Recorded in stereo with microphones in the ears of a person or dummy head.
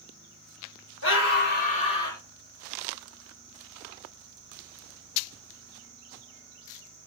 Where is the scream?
65° left (ahead or behind), 1.0 m; by 2.2 s 15° left (ahead or behind), 0.7 m.